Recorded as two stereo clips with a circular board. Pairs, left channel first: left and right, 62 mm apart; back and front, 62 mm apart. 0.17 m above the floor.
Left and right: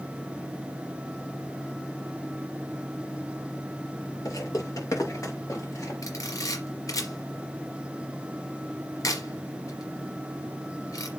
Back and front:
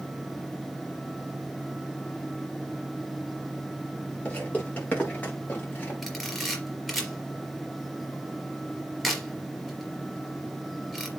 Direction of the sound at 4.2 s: 110° left.